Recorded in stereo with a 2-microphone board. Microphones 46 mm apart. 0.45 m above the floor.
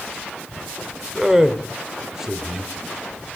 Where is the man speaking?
10° right (ahead or behind), 1.2 m.